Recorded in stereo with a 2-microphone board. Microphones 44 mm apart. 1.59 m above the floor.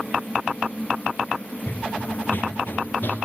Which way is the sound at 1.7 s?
45° left (ahead or behind).